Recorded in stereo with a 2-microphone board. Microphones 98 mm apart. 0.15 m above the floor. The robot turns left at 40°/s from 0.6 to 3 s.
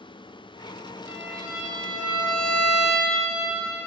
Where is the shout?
I don't hear a shout.